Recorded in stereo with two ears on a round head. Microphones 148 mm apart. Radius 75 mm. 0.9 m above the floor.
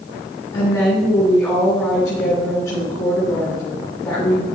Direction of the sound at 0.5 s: 15° left (ahead or behind).